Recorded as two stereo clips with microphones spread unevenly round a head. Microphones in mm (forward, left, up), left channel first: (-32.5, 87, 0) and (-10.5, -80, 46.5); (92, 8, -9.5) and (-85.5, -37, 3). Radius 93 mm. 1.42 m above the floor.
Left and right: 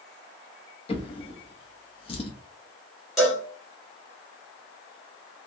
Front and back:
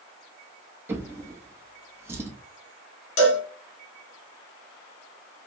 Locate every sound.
0.9 s a drawer: 150° left, 0.7 m
3.2 s a cowbell: straight ahead, 1.5 m